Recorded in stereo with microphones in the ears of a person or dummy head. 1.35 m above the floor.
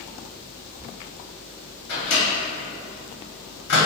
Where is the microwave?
60° left (ahead or behind), 0.9 m.